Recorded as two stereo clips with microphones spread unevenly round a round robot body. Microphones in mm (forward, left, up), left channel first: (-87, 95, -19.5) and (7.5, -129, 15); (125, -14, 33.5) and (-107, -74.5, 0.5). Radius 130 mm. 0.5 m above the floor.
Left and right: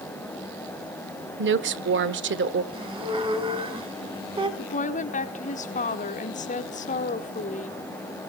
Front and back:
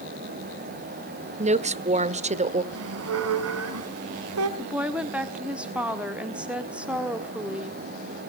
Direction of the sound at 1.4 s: 110° right.